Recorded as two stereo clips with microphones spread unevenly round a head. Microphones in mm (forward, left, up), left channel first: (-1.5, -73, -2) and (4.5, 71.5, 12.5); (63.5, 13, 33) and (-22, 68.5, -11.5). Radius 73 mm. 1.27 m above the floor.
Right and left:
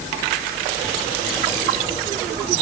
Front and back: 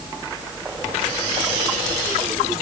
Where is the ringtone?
No ringtone in this recording.